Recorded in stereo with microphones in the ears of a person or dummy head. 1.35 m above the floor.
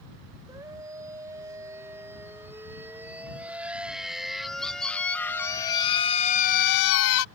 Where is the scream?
20° right (ahead or behind); by 7.3 s 80° left.